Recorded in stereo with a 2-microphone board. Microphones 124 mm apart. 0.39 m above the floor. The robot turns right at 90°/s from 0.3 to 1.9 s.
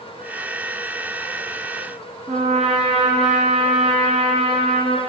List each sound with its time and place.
2.3 s a trumpet: 75° right (ahead or behind), 4 m